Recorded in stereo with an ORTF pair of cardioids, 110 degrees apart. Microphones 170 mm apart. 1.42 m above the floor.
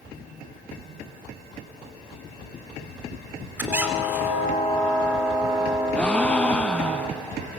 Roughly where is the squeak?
Ahead.